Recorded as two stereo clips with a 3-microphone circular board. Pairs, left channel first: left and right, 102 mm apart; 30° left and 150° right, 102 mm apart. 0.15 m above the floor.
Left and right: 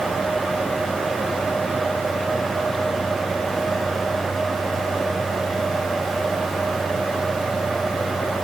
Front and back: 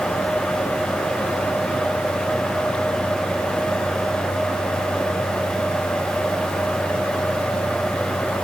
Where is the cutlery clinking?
No cutlery clinking in this recording.